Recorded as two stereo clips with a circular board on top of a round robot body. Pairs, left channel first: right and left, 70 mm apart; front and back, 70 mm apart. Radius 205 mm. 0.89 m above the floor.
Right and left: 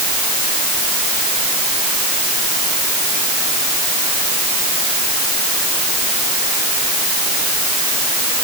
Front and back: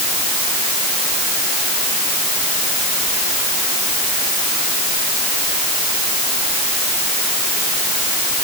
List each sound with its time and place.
Only background noise.